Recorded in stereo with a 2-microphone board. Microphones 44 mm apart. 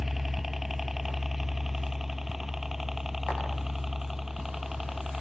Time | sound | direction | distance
0.0 | a helicopter | 5° right (ahead or behind) | ?